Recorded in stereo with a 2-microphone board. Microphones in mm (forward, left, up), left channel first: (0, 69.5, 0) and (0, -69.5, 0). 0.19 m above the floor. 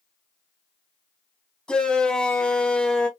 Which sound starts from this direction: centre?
A shout, at 1.7 s.